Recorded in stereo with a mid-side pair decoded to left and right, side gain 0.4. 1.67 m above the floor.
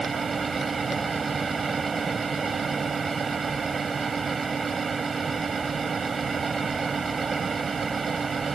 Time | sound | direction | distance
0.0 | a fan | 35° right | ?